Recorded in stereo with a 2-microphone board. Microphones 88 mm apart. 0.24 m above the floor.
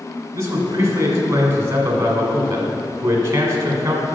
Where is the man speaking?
35° right (ahead or behind), 1.8 m.